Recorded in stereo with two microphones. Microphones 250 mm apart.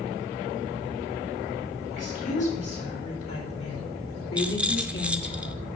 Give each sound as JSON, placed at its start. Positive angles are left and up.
{"t": 1.9, "sound": "a woman speaking", "side_deg": 75, "distance_m": 4.5}
{"t": 4.4, "sound": "a rattle", "side_deg": -5, "distance_m": 0.6}